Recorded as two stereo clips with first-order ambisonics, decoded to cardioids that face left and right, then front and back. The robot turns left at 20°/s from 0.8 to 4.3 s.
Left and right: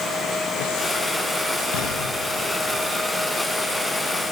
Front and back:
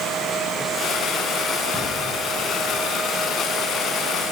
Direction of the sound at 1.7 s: 80° left.